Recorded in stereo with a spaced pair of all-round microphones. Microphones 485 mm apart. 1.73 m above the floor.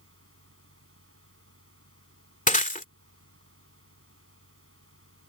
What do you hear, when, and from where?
0.0 s a fan: 25° right (ahead or behind)
2.5 s breaking glass: 15° left (ahead or behind)